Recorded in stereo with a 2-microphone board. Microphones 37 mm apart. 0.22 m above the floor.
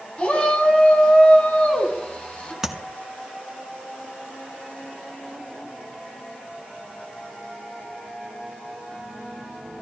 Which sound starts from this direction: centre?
Tapping, at 2.6 s.